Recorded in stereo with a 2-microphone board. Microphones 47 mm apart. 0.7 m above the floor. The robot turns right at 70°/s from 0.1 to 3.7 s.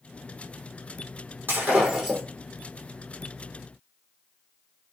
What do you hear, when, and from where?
1.5 s breaking glass: 50° right, 5.5 m; by 2.2 s straight ahead, 5.5 m